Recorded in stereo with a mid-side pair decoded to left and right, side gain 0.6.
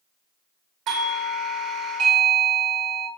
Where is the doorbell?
60° right, 0.7 m.